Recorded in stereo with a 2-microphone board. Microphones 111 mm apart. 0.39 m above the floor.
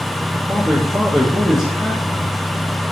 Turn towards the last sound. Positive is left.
turn(degrees=0)  # may be behind; listen again after turning